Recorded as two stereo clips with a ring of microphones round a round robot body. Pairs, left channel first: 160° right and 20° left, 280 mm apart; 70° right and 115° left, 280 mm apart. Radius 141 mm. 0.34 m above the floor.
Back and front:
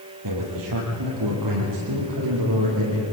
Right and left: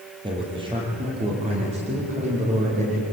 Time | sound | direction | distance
0.2 | a man speaking | 40° left | 8 m